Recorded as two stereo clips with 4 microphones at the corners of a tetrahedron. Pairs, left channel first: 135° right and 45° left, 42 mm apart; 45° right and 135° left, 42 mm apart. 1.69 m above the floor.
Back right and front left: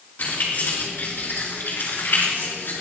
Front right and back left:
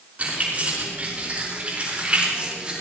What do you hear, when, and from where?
0.2 s keys jangling: 175° right, 5.5 m; by 2.8 s 160° right, 4 m